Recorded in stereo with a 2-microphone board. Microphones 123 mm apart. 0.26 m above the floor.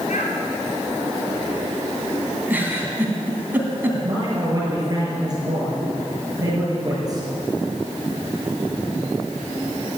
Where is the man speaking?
30° right (ahead or behind), 5 m.